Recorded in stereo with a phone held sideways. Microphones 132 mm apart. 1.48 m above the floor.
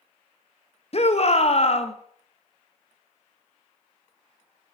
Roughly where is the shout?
Left.